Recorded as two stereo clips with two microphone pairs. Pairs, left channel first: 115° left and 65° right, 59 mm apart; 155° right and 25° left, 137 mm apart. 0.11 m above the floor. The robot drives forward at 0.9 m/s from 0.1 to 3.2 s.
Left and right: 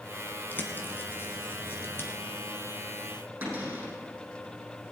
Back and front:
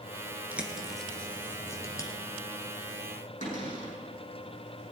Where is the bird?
95° left, 1.7 m; by 2.1 s 150° left, 2.5 m.